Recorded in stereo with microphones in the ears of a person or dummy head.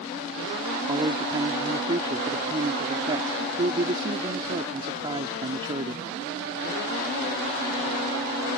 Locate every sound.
0.9 s a man speaking: 30° right (ahead or behind)